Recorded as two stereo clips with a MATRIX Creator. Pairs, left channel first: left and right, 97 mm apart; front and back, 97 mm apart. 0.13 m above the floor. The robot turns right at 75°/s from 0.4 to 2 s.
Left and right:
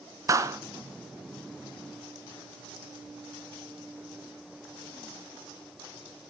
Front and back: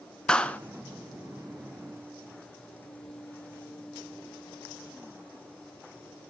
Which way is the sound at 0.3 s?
70° right.